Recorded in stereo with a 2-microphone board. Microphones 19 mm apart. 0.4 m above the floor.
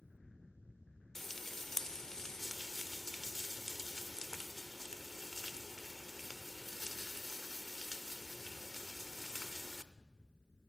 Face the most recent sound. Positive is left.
turn(degrees=25)  # may be behind; listen again after turning